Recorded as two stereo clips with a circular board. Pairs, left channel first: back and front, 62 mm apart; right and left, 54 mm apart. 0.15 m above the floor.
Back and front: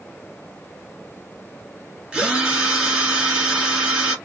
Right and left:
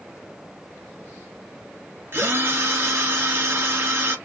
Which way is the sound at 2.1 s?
70° left.